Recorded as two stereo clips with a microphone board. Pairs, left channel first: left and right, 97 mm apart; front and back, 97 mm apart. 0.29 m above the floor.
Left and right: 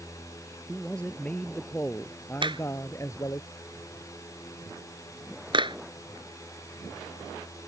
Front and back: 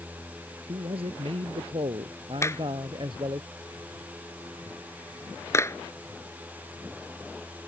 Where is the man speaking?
170° left; by 3.4 s 140° left.